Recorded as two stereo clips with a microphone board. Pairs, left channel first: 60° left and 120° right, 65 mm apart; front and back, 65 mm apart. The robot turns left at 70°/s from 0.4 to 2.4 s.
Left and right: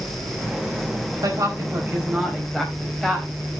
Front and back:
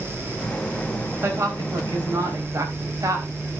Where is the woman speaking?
130° right, 4.5 m; by 3.3 s 150° left, 4.5 m.